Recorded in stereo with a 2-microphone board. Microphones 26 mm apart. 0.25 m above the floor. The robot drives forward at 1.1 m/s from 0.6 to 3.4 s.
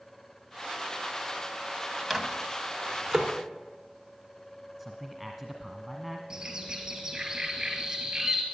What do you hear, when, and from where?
2.1 s a microwave: 5° right (ahead or behind), 1.5 m; by 3.3 s centre (ahead or behind), 2.5 m
4.8 s a man speaking: centre (ahead or behind), 1.6 m
6.3 s a bird: 25° right (ahead or behind), 3 m